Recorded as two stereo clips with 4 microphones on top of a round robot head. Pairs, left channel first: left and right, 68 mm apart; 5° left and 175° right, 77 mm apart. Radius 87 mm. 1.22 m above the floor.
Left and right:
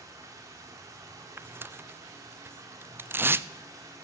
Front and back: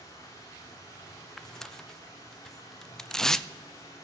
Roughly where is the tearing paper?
Right.